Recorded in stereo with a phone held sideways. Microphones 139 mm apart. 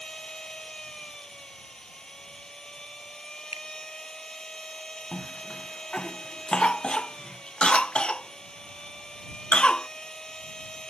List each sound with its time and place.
0.0 s a machine running: 5° left (ahead or behind)
3.5 s a finger snap: 50° left (ahead or behind)
5.1 s a cough: 10° left (ahead or behind)